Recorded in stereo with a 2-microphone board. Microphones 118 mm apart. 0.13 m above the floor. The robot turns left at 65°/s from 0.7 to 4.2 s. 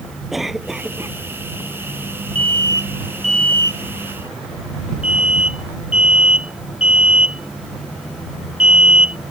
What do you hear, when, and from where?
0.3 s a cough: 5° right; by 1.2 s 35° right
2.4 s an alarm: 50° right (ahead or behind); by 9.2 s 55° left (ahead or behind)